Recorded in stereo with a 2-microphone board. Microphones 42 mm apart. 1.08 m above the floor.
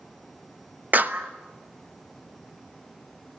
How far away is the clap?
About 1.0 m.